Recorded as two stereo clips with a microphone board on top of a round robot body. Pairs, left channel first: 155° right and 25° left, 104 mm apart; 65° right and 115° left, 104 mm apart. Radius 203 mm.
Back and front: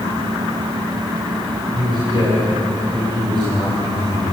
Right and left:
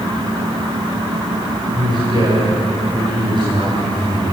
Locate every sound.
1.7 s a man speaking: 70° left, 5 m